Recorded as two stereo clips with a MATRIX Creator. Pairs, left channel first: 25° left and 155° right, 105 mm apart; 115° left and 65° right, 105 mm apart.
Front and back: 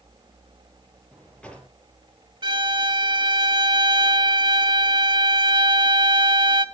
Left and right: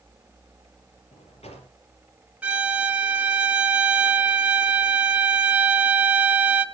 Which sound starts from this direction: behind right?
A violin, at 2.4 s.